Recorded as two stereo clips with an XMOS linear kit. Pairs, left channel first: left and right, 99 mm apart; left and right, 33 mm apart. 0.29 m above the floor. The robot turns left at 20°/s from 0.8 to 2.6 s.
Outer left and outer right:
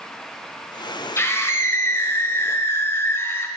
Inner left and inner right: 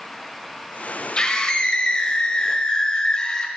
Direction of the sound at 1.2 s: 25° left (ahead or behind).